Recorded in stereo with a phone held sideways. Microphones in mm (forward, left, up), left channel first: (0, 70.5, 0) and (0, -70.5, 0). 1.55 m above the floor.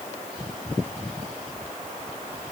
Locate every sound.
Only background noise.